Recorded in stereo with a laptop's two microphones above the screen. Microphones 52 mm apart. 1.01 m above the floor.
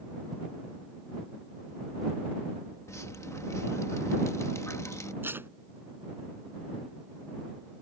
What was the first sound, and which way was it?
Dripping, 70° left (ahead or behind).